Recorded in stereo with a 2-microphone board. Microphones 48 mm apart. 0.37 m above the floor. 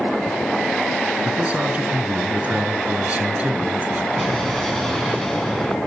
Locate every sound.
1.2 s a man speaking: 30° right (ahead or behind), 4 m
4.2 s an explosion: 10° left (ahead or behind), 4.5 m